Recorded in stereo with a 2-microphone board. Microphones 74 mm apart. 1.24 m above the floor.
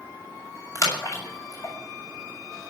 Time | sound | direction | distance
0.8 | a splash | 45° left (ahead or behind) | 7 m